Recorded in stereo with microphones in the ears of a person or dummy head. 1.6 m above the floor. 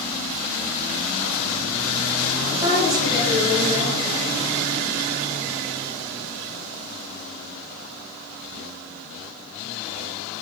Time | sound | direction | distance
2.5 | a woman speaking | 20° right (ahead or behind) | 2.5 m